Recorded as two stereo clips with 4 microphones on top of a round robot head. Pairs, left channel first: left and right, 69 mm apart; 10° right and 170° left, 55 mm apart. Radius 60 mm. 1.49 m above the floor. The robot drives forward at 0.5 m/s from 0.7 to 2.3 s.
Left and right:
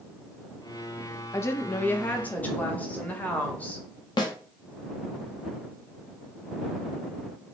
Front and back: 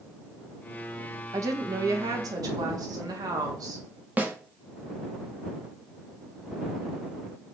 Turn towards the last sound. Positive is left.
turn(degrees=110)